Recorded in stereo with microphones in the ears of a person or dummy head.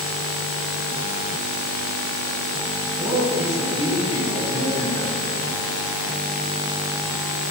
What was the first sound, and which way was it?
A man speaking, 35° left (ahead or behind).